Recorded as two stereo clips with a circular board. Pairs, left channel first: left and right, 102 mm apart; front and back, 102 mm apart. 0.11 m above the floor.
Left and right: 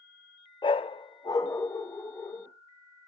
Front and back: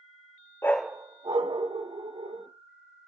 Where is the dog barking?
60° left, 0.5 m; by 2.5 s 155° left, 2.5 m.